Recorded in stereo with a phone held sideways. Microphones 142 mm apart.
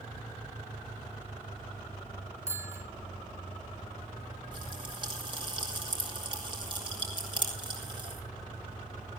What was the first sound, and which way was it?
A bicycle bell, 20° right (ahead or behind).